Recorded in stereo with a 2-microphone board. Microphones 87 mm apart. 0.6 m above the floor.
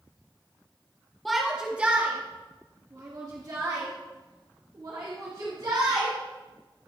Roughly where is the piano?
No piano in this recording.